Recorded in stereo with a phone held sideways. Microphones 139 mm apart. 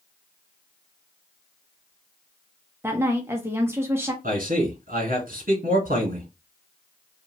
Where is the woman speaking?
15° right (ahead or behind), 0.7 m.